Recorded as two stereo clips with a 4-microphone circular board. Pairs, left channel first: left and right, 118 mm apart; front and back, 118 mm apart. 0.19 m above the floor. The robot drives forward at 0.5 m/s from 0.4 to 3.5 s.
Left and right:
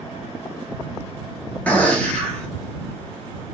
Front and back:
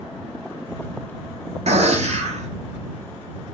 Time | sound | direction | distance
1.7 | a gunshot | 165° left | 1.0 m